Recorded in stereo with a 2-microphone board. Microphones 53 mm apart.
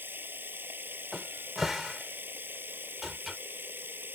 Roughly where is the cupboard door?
Centre.